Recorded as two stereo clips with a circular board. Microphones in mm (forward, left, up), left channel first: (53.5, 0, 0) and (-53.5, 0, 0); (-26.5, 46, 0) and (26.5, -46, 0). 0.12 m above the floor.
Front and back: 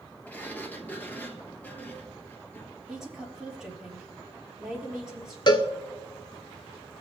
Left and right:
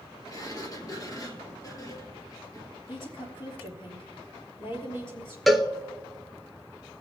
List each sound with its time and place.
0.3 s a sliding door: 70° left, 1.4 m
2.9 s a woman speaking: 100° left, 3 m
5.5 s a cowbell: 30° left, 0.7 m